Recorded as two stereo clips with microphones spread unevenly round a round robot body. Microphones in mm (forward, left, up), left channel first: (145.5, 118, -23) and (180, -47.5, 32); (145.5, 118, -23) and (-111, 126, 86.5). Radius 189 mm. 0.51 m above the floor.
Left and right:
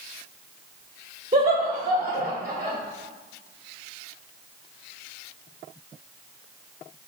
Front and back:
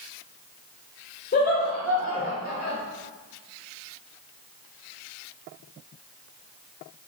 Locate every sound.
1.3 s laughter: 15° right, 1.2 m